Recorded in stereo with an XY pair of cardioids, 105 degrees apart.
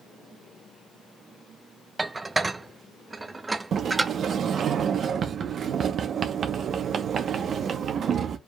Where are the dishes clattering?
20° right, 0.6 m.